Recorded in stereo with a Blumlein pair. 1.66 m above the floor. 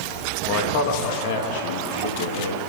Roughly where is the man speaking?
Ahead left.